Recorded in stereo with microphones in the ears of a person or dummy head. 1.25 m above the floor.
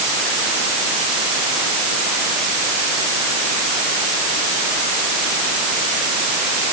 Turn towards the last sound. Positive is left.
No sound to turn to.